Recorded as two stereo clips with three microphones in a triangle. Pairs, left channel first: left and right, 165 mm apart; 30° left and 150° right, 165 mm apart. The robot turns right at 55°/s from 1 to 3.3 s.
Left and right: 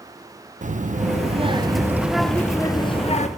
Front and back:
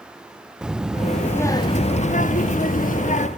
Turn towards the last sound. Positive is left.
turn(degrees=60)